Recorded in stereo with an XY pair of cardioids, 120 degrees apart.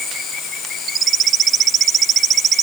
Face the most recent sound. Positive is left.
No sound to turn to.